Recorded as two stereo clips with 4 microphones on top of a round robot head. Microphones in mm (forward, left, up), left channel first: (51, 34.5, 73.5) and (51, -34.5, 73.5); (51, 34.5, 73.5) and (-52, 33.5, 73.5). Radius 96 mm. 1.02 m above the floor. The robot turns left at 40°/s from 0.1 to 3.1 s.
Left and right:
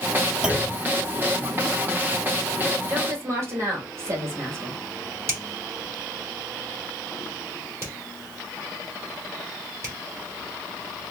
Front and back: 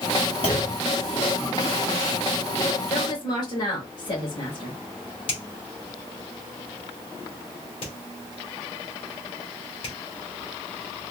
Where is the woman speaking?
35° right, 2 m; by 4.7 s 45° right, 2 m.